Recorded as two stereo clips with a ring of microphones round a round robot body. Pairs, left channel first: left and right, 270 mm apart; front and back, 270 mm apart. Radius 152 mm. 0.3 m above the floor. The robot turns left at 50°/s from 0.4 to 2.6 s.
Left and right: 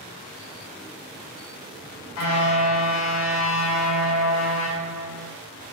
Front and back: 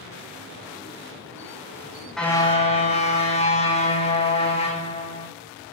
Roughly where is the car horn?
Left.